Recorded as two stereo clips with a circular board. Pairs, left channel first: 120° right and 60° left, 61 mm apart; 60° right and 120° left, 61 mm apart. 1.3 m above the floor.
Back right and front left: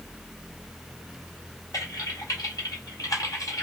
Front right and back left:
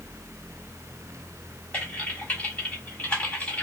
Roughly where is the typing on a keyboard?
Behind right.